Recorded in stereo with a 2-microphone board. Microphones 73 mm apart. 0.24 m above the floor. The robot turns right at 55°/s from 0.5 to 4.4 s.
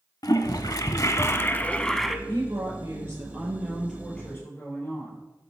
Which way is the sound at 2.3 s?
90° right.